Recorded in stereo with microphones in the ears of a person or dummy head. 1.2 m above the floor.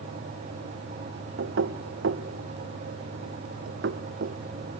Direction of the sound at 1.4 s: 60° right (ahead or behind).